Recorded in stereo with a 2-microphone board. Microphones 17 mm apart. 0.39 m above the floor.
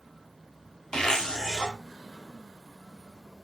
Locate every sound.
0.9 s a zipper: 55° left (ahead or behind), 0.7 m